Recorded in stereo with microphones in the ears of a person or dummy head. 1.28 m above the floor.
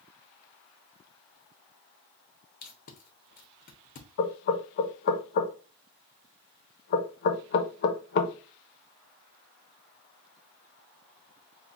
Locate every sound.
2.6 s tape being pulled: 45° left (ahead or behind), 0.8 m
4.2 s knocking: 55° left (ahead or behind), 0.8 m